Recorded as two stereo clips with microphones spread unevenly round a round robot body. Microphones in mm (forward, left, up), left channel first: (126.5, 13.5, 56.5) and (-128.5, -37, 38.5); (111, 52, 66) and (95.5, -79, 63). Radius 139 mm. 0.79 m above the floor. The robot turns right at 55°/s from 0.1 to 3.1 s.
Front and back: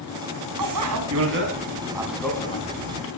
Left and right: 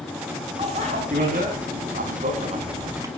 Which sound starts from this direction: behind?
A bicycle bell, at 0.6 s.